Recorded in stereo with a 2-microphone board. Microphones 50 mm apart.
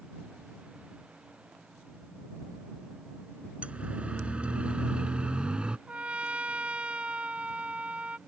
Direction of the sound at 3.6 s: 25° right (ahead or behind).